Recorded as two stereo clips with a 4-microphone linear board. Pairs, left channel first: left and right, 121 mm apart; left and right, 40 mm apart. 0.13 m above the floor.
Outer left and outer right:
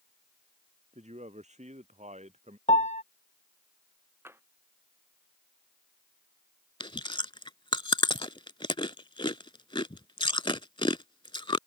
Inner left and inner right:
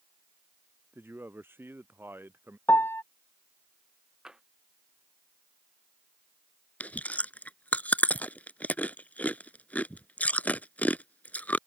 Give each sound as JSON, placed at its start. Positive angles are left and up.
{"t": 0.9, "sound": "a man speaking", "side_deg": -70}
{"t": 2.7, "sound": "a piano", "side_deg": 75}
{"t": 4.2, "sound": "tapping", "side_deg": -20}
{"t": 6.8, "sound": "chewing", "side_deg": 45}